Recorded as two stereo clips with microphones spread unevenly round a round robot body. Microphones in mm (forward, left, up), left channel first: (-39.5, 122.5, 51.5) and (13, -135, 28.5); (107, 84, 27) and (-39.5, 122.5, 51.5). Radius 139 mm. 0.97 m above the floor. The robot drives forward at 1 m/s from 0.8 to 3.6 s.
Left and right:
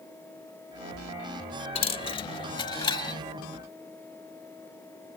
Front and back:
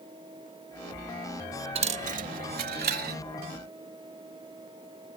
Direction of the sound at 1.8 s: 160° left.